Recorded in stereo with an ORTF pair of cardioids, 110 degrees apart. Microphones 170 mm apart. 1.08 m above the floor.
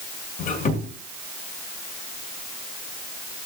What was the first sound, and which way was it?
A squeak, 50° left.